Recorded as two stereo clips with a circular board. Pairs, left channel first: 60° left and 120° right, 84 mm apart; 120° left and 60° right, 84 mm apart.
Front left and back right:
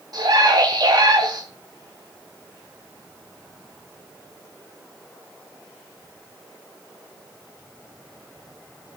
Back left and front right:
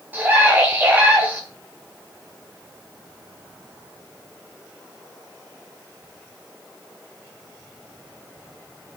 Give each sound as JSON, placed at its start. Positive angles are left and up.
{"t": 0.1, "sound": "a scream", "azimuth_deg": -125, "distance_m": 1.8}